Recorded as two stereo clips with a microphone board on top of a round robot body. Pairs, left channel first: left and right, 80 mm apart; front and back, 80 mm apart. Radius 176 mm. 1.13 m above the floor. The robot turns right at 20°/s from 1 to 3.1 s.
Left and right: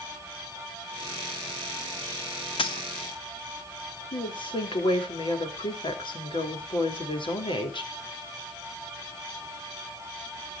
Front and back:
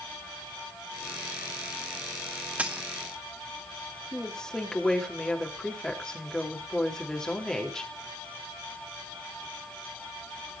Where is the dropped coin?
105° left, 0.7 m; by 2.9 s 110° left, 0.7 m.